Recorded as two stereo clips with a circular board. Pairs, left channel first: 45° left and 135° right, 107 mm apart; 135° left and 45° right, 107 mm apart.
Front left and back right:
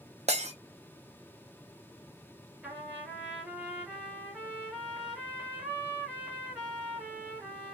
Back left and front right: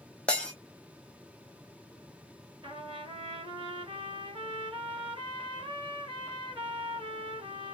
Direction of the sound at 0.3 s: 145° right.